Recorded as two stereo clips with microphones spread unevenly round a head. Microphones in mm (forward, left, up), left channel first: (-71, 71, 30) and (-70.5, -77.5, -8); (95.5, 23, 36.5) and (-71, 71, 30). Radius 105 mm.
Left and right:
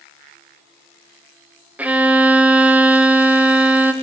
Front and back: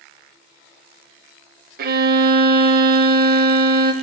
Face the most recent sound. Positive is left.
turn(degrees=-165)